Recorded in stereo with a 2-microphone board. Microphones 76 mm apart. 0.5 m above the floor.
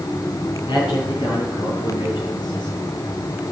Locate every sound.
0.7 s a man speaking: 75° left (ahead or behind), 8.5 m; by 2.8 s 85° left, 8 m